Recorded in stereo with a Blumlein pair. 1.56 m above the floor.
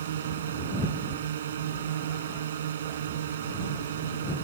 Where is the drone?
65° right.